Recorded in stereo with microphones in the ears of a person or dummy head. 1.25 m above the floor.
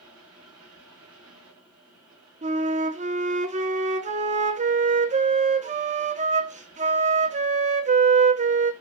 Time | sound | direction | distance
0.0 | a fan | 25° right (ahead or behind) | 8.5 m
2.4 | a flute | 30° right (ahead or behind) | 1.0 m